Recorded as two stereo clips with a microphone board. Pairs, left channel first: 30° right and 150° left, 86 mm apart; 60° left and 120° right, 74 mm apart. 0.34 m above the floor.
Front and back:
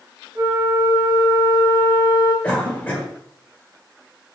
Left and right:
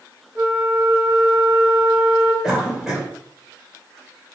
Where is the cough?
60° right, 1.1 m.